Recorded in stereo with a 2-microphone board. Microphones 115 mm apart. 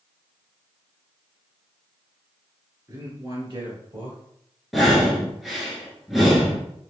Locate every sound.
2.9 s a man speaking: 30° right (ahead or behind), 1.7 m; by 4.2 s 50° right (ahead or behind), 2 m
4.7 s breathing: centre (ahead or behind), 1.1 m